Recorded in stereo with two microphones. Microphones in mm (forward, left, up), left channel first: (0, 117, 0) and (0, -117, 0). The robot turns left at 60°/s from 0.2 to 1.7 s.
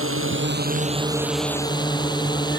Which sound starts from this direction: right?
A drone, at 0.0 s.